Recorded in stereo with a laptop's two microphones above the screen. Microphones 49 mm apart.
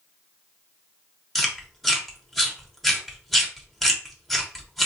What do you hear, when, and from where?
1.4 s chewing: 5° left (ahead or behind), 1.0 m